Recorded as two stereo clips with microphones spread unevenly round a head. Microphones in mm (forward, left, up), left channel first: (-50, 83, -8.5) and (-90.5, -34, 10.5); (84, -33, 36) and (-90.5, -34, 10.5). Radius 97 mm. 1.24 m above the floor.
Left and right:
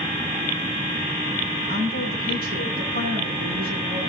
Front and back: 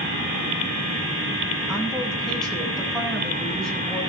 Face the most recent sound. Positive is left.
turn(degrees=-85)